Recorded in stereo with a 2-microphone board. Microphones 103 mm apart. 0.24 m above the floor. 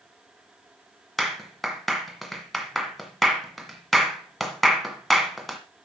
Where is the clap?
Centre (ahead or behind), 1.7 m.